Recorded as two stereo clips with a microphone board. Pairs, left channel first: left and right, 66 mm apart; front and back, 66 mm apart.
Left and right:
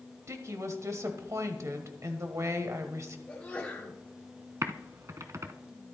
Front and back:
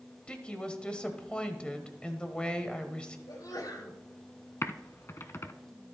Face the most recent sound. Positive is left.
turn(degrees=-50)